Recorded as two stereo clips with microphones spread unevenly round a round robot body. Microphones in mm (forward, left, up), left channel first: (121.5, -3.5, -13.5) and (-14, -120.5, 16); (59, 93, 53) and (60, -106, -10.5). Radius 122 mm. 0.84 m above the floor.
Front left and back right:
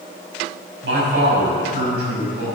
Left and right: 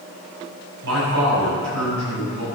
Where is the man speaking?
120° right, 6 m.